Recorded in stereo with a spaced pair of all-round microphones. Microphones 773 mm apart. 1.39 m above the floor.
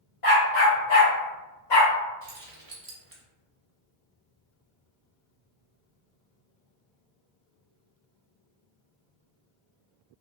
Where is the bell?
I don't hear a bell.